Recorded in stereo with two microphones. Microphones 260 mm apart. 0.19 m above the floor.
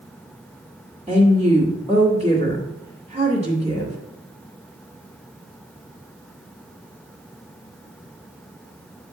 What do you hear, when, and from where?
1.1 s a woman speaking: 25° right (ahead or behind), 1.7 m